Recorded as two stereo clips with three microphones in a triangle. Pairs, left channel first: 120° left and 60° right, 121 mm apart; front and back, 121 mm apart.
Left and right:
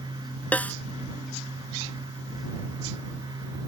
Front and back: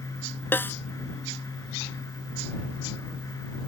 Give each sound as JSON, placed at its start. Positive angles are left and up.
{"t": 0.5, "sound": "a snare drum", "azimuth_deg": 55}